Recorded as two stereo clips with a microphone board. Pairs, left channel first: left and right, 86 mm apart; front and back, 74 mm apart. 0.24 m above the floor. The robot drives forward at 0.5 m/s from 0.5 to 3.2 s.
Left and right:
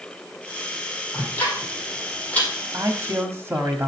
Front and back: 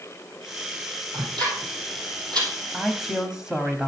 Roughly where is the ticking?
Behind.